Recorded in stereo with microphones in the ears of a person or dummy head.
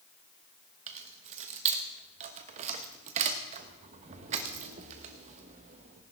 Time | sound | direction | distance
0.9 | keys jangling | 40° right (ahead or behind) | 1.2 m